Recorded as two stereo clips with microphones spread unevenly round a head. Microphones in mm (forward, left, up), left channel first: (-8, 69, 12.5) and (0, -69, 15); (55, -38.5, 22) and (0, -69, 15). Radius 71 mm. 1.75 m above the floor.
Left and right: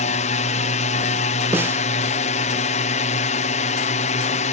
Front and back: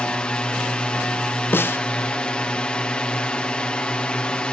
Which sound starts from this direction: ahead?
A snare drum, at 1.5 s.